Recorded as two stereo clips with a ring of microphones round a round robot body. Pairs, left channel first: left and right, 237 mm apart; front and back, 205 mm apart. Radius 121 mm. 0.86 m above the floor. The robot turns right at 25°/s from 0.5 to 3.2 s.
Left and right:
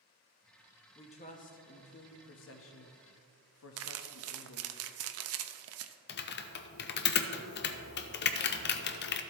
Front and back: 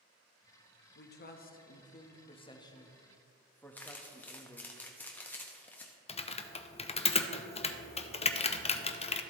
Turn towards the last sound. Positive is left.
turn(degrees=55)